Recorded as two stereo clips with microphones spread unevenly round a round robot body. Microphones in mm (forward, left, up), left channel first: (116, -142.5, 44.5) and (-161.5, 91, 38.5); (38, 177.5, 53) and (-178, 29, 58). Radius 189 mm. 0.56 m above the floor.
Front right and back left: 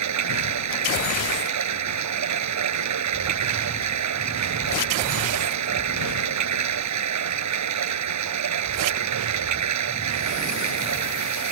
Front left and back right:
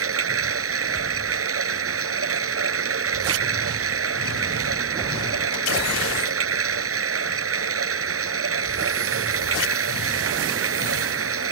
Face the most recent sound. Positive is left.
turn(degrees=-175)